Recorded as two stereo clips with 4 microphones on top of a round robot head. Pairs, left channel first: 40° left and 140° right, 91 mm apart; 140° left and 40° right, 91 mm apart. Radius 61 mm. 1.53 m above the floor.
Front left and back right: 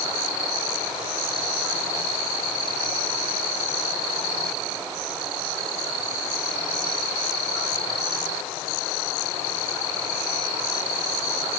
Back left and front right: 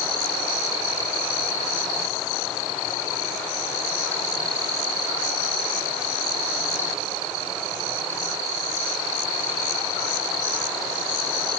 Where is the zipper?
I don't hear a zipper.